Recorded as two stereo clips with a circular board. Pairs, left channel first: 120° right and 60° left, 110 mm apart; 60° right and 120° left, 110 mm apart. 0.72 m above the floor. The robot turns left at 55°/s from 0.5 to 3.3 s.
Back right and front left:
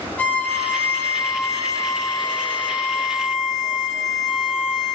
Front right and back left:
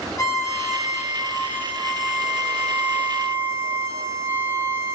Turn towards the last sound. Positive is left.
turn(degrees=145)